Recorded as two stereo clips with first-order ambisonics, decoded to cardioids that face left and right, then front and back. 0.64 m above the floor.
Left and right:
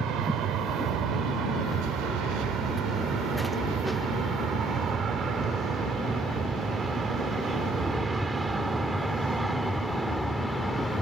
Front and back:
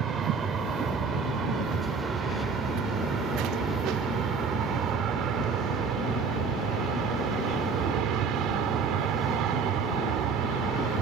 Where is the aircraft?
125° right; by 11.0 s 175° left.